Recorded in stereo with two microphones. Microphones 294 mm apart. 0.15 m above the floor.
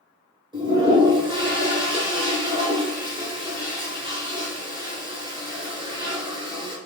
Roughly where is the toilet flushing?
Centre.